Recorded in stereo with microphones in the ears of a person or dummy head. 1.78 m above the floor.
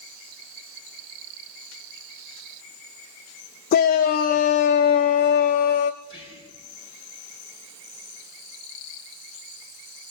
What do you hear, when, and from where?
3.7 s a shout: 45° left (ahead or behind), 0.6 m
6.0 s whispering: 30° right (ahead or behind), 5 m